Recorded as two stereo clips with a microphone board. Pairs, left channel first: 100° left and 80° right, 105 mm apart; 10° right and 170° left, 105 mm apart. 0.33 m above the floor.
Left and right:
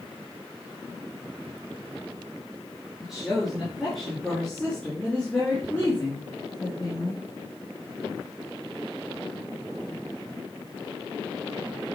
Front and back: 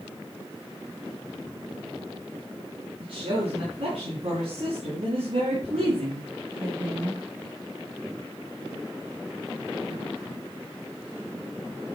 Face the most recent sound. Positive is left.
turn(degrees=155)